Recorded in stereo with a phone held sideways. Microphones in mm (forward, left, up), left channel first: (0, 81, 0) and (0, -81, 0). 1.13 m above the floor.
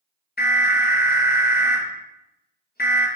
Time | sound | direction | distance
0.4 | an alarm | 75° left (ahead or behind) | 1.2 m